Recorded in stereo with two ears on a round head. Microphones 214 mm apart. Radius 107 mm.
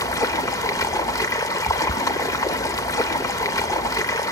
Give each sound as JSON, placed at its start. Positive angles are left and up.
{"t": 0.0, "sound": "running water", "side_deg": 15, "distance_m": 0.9}